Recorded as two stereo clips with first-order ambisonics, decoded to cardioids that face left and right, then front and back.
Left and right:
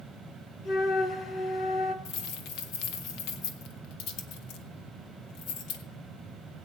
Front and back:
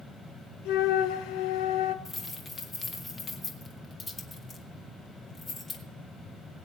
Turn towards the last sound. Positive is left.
turn(degrees=70)